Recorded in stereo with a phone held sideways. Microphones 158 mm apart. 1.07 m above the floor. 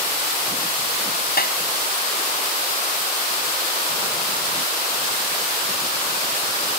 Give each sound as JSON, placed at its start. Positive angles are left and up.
{"t": 1.4, "sound": "a clap", "side_deg": 70}